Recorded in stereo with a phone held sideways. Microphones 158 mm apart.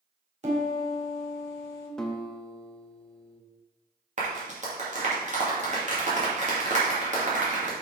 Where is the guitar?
5° left (ahead or behind), 0.8 m.